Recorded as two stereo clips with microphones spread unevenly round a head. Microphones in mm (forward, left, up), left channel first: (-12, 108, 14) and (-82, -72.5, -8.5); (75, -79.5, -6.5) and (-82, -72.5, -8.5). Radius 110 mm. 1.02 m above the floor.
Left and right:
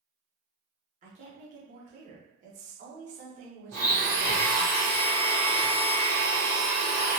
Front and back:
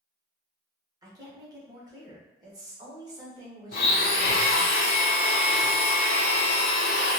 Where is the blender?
15° right, 0.6 m.